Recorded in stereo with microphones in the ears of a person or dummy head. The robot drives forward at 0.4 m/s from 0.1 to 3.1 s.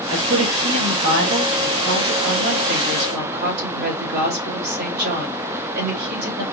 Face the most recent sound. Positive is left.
turn(degrees=-50)  # may be behind; listen again after turning